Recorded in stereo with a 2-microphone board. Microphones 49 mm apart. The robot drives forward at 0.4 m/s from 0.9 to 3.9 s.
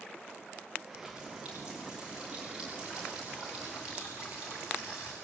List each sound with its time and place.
0.9 s a running tap: 20° right (ahead or behind), 6 m